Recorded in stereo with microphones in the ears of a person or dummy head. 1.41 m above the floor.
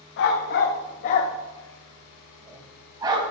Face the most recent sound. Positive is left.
turn(degrees=-30)  # may be behind; listen again after turning